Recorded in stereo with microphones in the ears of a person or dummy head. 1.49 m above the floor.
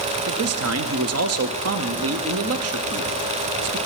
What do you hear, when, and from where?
0.3 s a man speaking: 70° right (ahead or behind), 0.5 m